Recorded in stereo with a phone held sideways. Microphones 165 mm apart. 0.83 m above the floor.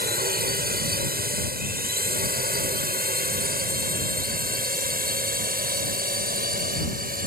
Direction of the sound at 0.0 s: 65° right (ahead or behind).